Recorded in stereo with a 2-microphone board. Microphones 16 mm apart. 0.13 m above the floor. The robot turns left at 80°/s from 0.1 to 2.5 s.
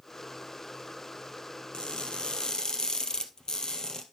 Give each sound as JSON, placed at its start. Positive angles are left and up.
{"t": 1.7, "sound": "crushing", "azimuth_deg": 115, "distance_m": 1.5}